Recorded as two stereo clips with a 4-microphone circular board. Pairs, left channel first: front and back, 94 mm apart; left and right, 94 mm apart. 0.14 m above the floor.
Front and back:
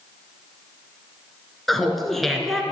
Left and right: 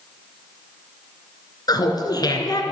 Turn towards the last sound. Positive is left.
turn(degrees=85)